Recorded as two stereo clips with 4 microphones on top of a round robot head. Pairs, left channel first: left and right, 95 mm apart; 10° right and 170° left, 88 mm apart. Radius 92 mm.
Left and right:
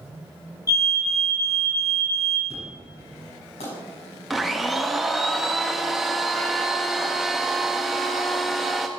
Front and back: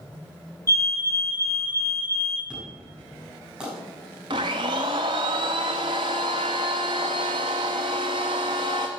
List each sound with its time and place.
0.7 s a fire alarm: 45° left, 2.5 m
2.5 s an explosion: 90° left, 5.5 m
4.3 s a blender: straight behind, 0.6 m